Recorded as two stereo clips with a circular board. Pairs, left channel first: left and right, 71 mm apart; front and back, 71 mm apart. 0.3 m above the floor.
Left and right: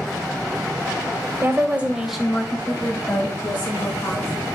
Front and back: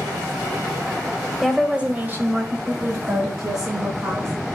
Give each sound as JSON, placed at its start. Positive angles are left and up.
{"t": 1.4, "sound": "a woman speaking", "azimuth_deg": -95, "distance_m": 1.1}